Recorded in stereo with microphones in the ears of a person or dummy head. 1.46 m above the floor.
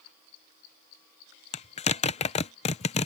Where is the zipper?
35° left (ahead or behind).